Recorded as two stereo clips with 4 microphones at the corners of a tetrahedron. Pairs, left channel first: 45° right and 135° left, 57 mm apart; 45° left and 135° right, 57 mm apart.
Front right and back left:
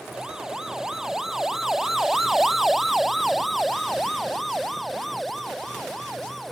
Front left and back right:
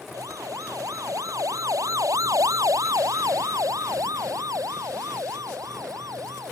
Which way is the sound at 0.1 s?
145° right.